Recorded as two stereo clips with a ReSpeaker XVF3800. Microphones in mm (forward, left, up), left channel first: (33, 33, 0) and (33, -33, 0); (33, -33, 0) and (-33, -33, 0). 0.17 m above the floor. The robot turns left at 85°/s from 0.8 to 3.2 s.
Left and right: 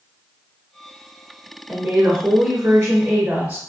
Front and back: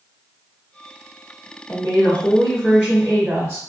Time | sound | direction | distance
1.7 | a woman speaking | straight ahead | 1.2 m